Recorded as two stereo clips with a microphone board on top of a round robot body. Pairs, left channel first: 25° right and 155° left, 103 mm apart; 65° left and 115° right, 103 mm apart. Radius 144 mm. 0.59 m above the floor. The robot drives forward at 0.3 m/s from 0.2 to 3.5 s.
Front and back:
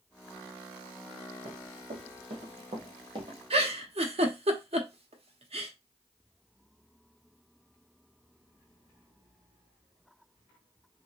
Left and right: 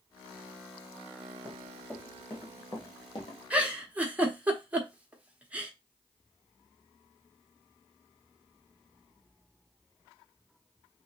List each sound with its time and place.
1.4 s running footsteps: 160° left, 3 m; by 3.4 s 105° left, 1.6 m
3.5 s a giggle: 170° left, 1.3 m